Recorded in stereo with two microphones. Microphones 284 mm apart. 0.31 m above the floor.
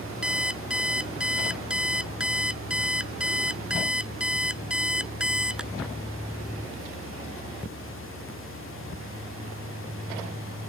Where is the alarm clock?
5° right (ahead or behind).